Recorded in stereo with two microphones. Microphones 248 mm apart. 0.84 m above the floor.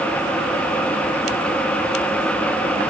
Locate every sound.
Only background noise.